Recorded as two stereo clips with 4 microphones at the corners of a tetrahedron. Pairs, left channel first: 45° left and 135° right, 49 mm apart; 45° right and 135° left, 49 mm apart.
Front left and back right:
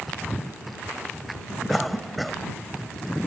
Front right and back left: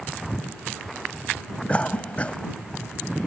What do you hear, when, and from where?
1.7 s a cough: 45° right